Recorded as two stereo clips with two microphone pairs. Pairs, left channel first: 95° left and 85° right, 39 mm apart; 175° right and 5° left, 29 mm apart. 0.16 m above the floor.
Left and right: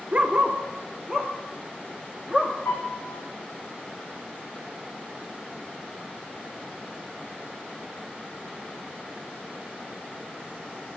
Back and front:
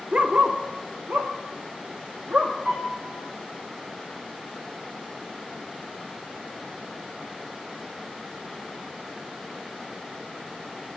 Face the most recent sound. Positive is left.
turn(degrees=60)